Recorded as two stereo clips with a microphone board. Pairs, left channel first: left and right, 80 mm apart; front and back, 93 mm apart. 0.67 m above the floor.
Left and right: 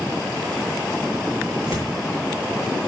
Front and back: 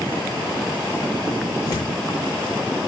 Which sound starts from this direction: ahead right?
Tearing paper, at 1.6 s.